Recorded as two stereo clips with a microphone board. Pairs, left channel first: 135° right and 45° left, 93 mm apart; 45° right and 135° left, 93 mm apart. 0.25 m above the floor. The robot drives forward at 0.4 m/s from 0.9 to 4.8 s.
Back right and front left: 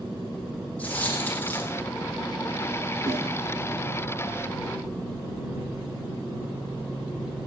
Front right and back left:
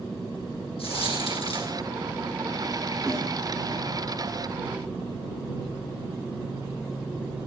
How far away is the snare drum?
About 7.5 m.